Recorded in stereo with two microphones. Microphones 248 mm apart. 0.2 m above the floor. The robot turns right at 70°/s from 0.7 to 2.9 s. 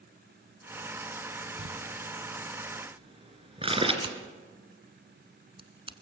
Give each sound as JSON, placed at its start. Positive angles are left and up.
{"t": 1.6, "sound": "crumpling", "side_deg": -55, "distance_m": 2.5}
{"t": 4.0, "sound": "scissors", "side_deg": -20, "distance_m": 1.0}